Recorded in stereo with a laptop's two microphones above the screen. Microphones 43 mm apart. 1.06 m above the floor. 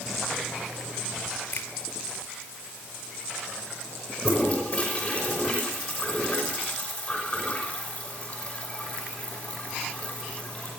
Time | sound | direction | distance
1.5 | a finger snap | 60° left (ahead or behind) | 2.5 m
4.2 | a toilet flushing | 30° left (ahead or behind) | 6 m